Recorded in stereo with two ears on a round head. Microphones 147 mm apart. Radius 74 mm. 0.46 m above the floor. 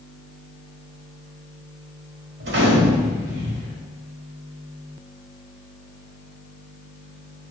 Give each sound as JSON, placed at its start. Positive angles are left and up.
{"t": 2.4, "sound": "a gunshot", "side_deg": -70, "distance_m": 1.1}